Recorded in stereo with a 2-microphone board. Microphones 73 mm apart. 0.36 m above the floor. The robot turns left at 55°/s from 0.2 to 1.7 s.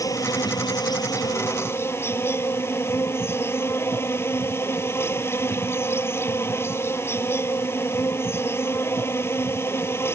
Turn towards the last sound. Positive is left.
turn(degrees=40)